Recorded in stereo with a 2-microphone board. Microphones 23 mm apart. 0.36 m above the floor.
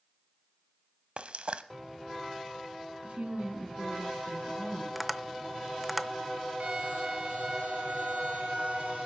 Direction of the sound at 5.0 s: 10° right (ahead or behind).